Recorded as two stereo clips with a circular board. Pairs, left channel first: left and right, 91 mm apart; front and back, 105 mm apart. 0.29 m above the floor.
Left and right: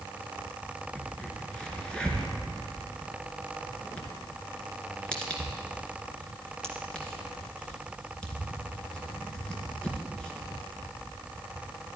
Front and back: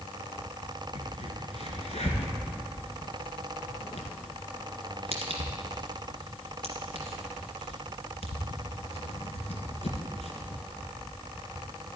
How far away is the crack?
About 1.9 m.